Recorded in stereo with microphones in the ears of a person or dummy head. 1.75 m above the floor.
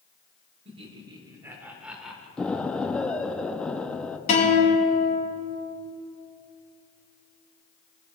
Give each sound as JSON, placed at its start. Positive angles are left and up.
{"t": 0.7, "sound": "laughter", "side_deg": -35, "distance_m": 1.5}
{"t": 2.4, "sound": "an explosion", "side_deg": 0, "distance_m": 0.5}
{"t": 4.3, "sound": "a guitar", "side_deg": 50, "distance_m": 3.0}